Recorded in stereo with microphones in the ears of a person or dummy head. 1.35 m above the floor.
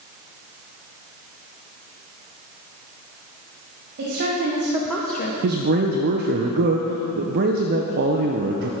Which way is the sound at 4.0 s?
50° right (ahead or behind).